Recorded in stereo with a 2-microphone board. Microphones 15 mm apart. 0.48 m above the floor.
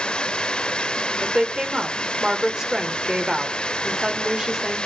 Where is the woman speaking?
40° right (ahead or behind), 1.7 m.